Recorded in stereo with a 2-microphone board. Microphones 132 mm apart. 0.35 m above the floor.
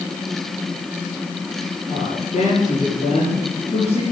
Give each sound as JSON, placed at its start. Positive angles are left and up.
{"t": 1.9, "sound": "a woman speaking", "side_deg": 60, "distance_m": 8.0}